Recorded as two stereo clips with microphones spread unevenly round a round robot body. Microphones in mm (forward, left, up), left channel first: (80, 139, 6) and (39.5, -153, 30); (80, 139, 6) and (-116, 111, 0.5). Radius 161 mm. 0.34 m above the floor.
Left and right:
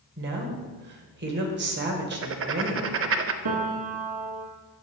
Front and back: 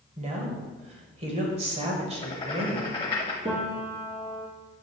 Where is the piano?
95° right, 1.8 m.